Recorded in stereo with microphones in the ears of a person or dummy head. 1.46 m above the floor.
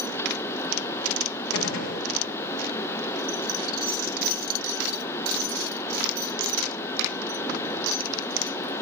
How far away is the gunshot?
About 1.7 m.